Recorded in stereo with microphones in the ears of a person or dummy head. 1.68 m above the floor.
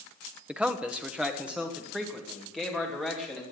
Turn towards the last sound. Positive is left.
turn(degrees=0)  # may be behind; listen again after turning